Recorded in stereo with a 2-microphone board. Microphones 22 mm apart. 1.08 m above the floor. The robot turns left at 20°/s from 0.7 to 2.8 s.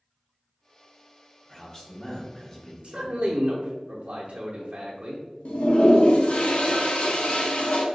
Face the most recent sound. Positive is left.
turn(degrees=60)  # may be behind; listen again after turning